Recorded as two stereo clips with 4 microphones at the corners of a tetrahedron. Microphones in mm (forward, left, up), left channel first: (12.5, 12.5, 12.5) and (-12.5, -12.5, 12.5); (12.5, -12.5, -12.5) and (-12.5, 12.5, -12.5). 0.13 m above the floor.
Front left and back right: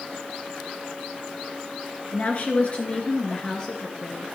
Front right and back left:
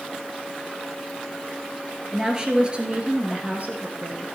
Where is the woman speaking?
65° left, 2 m; by 4.2 s 115° left, 2.5 m.